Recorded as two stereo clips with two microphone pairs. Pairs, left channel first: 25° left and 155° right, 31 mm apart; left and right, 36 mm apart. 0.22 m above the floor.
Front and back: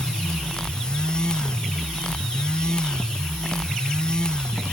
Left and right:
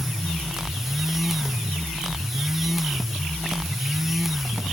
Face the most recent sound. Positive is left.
No sound to turn to.